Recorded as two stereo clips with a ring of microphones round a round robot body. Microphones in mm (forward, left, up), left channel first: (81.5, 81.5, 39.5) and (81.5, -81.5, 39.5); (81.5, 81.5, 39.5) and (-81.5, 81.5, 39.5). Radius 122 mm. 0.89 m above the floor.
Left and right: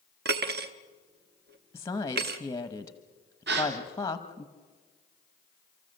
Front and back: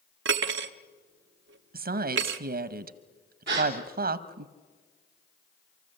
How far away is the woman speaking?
About 0.8 m.